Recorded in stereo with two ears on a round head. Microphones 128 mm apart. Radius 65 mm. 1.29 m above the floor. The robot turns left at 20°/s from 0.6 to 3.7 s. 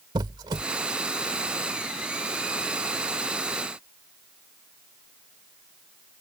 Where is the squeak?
30° right (ahead or behind).